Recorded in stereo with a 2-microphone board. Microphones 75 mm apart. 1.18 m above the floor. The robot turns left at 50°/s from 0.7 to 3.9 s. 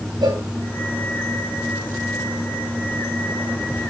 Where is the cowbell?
80° right, 3 m.